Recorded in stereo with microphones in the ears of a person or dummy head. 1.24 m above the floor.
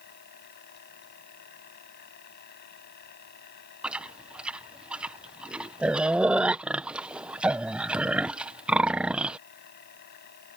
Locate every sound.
0.0 s a machine running: 60° left (ahead or behind)
3.8 s chewing: 10° right (ahead or behind)